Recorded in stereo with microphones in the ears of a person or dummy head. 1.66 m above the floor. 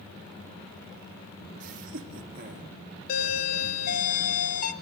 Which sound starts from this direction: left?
A doorbell, at 3.1 s.